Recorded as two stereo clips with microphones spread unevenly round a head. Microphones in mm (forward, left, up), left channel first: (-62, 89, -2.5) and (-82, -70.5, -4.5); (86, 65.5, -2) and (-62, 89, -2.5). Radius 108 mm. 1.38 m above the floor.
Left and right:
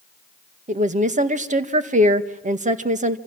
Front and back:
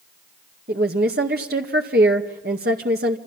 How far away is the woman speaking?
About 1.9 m.